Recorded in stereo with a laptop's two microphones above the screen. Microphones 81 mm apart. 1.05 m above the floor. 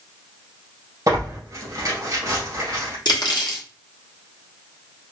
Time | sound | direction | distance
1.1 | tearing paper | 50° right (ahead or behind) | 2 m
3.0 | cutlery clinking | 60° left (ahead or behind) | 0.9 m